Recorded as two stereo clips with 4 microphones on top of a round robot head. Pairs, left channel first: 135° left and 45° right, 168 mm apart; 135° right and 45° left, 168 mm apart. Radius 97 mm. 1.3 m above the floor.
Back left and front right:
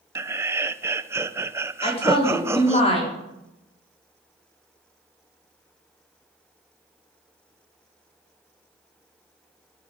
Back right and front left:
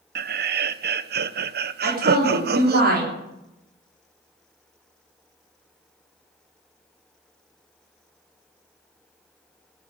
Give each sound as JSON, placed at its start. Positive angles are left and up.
{"t": 0.1, "sound": "laughter", "azimuth_deg": 30, "distance_m": 0.9}
{"t": 1.8, "sound": "a woman speaking", "azimuth_deg": 80, "distance_m": 4.0}